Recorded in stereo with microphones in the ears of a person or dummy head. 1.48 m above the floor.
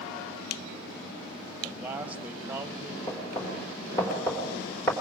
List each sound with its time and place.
1.6 s a man speaking: 10° right (ahead or behind), 2.5 m
3.1 s knocking: 10° left (ahead or behind), 4 m